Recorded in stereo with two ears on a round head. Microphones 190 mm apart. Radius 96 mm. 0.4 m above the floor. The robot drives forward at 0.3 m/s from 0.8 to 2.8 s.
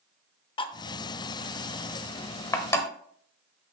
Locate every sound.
0.6 s cutlery clinking: 20° left (ahead or behind), 0.6 m; by 2.9 s 15° left (ahead or behind), 1.0 m